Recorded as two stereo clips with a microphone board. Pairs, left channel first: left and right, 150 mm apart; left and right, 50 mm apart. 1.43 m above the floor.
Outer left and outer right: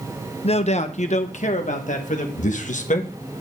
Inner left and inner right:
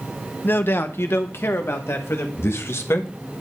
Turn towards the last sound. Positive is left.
turn(degrees=60)  # may be behind; listen again after turning